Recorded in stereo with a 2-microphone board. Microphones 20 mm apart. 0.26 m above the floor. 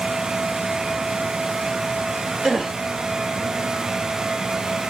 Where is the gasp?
45° right (ahead or behind), 2.0 m.